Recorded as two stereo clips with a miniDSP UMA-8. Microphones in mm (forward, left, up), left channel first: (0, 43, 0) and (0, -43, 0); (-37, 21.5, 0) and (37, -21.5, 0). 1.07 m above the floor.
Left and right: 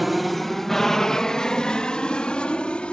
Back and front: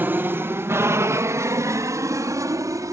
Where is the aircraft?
Straight ahead; by 2.9 s 15° left.